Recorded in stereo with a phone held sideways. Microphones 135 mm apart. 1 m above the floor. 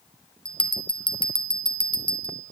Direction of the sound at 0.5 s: 40° left (ahead or behind).